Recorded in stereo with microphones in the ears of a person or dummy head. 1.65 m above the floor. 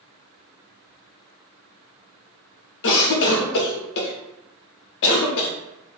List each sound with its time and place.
2.8 s a cough: 65° left (ahead or behind), 0.7 m